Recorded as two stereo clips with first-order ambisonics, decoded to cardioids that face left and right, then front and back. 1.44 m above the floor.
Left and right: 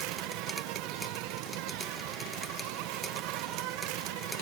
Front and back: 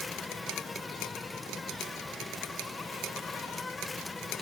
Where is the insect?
75° right.